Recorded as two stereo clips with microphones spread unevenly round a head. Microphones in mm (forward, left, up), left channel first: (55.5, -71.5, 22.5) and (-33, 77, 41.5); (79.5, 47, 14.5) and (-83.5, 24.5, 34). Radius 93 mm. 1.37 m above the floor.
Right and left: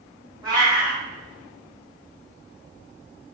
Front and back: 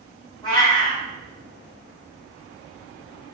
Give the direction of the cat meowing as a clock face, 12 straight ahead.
10 o'clock.